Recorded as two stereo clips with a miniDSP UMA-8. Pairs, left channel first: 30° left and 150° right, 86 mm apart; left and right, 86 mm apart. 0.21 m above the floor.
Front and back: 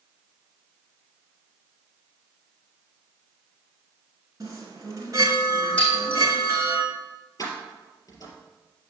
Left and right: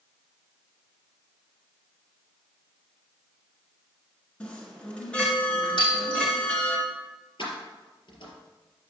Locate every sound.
4.4 s a chime: 165° left, 2 m
5.8 s breaking glass: 100° left, 4.5 m
7.4 s keys jangling: 80° left, 3.5 m